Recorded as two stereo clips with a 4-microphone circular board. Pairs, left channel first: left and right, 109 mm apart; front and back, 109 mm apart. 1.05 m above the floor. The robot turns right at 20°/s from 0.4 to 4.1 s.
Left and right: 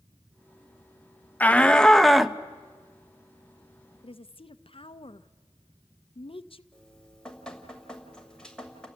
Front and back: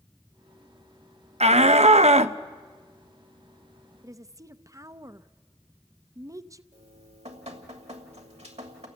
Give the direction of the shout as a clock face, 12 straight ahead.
7 o'clock.